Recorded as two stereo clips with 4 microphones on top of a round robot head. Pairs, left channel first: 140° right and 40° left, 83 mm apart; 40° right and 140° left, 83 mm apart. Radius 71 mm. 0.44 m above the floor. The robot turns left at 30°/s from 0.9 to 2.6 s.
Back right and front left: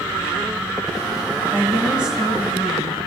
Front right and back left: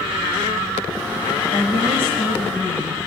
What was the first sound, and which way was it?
A woman speaking, 25° right.